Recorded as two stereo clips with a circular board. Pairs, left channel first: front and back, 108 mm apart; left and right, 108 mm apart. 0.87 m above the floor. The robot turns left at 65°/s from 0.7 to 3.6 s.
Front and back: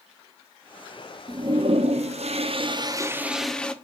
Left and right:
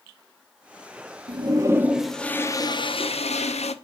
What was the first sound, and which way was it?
A toilet flushing, 130° right.